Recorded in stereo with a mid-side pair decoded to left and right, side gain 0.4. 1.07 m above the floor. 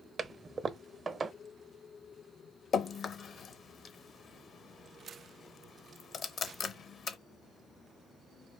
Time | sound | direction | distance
0.2 | a toilet flushing | 45° right | 0.6 m
2.7 | dripping | 60° left | 0.7 m